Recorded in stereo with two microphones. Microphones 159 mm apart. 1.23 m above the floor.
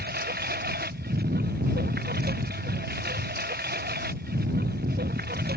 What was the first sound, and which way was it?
A lawn mower, 80° right.